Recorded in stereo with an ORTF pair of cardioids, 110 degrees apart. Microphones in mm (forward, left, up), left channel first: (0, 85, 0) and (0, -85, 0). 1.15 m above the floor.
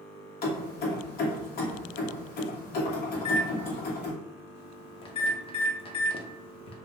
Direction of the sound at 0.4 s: 65° left.